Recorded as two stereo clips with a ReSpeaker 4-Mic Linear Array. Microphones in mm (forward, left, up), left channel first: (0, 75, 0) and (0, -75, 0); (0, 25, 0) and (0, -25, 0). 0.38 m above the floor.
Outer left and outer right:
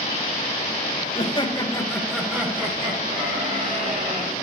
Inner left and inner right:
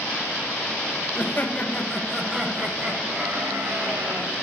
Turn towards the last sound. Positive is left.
turn(degrees=-60)  # may be behind; listen again after turning